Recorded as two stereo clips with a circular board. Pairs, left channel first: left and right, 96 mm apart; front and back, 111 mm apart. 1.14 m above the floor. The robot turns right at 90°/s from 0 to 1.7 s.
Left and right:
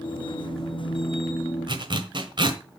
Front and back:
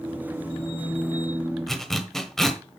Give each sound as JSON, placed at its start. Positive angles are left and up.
{"t": 1.7, "sound": "a zipper", "azimuth_deg": -90, "distance_m": 1.3}